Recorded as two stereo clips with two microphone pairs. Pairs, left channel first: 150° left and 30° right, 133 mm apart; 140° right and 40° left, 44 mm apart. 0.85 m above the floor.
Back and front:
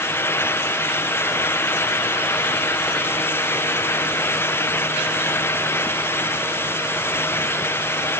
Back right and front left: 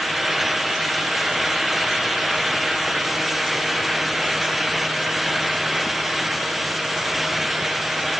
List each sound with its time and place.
Only background noise.